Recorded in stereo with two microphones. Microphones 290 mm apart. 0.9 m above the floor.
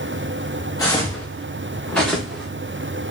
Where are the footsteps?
10° left (ahead or behind), 3.5 m; by 2.5 s centre (ahead or behind), 4 m.